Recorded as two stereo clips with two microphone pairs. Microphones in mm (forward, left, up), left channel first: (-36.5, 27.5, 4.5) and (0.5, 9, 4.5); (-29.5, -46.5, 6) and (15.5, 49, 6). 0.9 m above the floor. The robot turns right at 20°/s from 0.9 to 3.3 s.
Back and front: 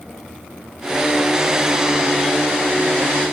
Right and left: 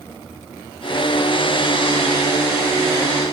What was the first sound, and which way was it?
Only background noise.